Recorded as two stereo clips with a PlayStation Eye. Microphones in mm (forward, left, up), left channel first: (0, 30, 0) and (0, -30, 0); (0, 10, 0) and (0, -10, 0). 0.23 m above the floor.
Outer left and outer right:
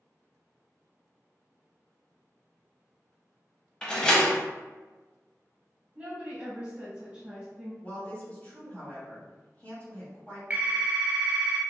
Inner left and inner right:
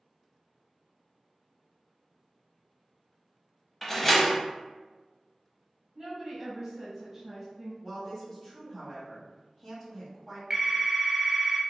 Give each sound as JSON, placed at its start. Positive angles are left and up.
{"t": 3.8, "sound": "a door slam", "side_deg": 15, "distance_m": 0.7}
{"t": 6.0, "sound": "a woman speaking", "side_deg": -20, "distance_m": 1.3}
{"t": 7.8, "sound": "a woman speaking", "side_deg": 25, "distance_m": 1.4}
{"t": 10.5, "sound": "a phone ringing", "side_deg": -30, "distance_m": 0.6}